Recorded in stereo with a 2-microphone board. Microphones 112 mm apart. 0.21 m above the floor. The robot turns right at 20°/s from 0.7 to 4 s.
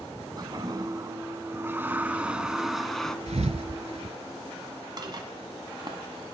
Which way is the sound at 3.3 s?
80° right.